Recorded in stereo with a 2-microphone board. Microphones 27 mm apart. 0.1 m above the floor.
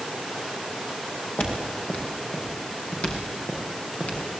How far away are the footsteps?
About 6.5 m.